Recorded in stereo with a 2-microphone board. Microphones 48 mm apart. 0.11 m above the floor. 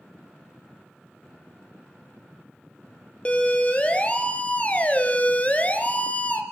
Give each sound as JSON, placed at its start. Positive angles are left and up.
{"t": 3.2, "sound": "a siren", "side_deg": 25, "distance_m": 3.0}